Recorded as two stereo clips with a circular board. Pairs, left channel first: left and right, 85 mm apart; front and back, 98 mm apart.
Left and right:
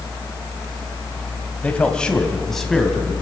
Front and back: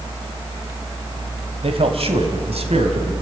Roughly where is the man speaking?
Behind.